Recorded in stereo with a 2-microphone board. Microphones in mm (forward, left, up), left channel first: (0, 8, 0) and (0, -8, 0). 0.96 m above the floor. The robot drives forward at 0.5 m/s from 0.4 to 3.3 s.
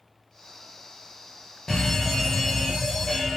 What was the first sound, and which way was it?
A fire alarm, 30° left (ahead or behind).